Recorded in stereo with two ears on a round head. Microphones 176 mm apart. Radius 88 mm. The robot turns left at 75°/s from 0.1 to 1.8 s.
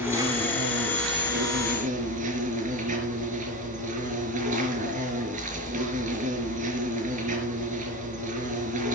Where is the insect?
10° right, 4.5 m; by 9.0 s 140° right, 4.5 m.